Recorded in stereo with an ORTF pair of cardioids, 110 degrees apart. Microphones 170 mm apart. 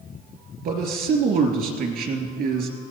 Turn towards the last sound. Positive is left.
turn(degrees=-65)